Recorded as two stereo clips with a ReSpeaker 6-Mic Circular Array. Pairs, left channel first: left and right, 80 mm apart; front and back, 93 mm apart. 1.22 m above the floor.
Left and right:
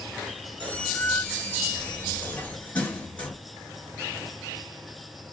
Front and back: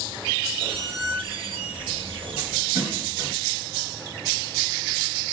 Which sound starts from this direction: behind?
A squeak, at 0.6 s.